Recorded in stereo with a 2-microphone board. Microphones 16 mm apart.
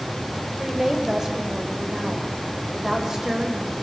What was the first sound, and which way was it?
A woman speaking, 30° right (ahead or behind).